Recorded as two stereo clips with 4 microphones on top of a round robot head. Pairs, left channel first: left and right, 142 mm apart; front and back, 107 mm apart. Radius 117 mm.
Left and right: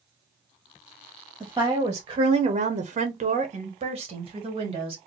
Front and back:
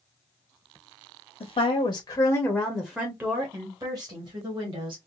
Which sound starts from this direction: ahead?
A woman speaking, at 1.4 s.